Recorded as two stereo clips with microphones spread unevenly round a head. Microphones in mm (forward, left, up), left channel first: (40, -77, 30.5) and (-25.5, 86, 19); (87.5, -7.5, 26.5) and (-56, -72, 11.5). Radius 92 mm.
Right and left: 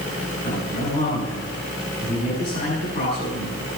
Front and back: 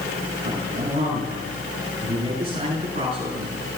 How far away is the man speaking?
About 7 m.